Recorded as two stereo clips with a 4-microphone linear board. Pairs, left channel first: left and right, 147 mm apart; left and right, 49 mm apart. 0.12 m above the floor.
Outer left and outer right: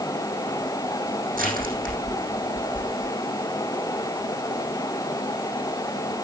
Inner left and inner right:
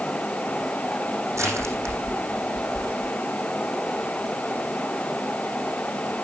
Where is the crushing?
75° right (ahead or behind), 6 m.